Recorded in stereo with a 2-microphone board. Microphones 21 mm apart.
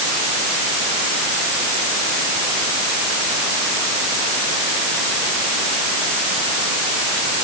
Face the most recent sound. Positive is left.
No sound to turn to.